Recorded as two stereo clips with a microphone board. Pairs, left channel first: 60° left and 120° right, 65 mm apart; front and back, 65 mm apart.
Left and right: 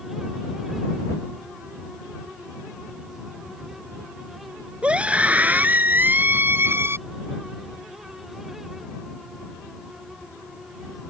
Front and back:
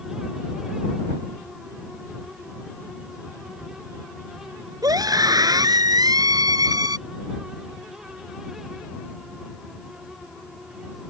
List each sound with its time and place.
4.8 s a scream: 165° left; by 7.0 s 170° right